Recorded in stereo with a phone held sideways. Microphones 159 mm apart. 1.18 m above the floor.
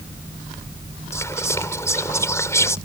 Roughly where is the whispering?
Centre.